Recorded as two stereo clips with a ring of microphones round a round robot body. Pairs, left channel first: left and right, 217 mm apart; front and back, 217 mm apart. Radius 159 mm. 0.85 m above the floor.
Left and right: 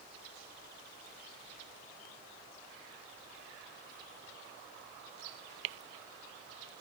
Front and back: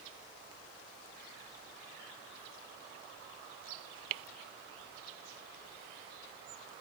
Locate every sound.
Only background noise.